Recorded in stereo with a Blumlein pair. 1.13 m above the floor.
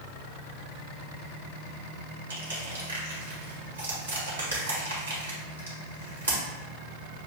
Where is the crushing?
70° right, 1.7 m.